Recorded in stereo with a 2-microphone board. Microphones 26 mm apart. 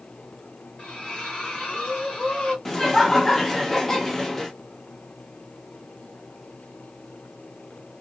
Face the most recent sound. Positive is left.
turn(degrees=15)  # may be behind; listen again after turning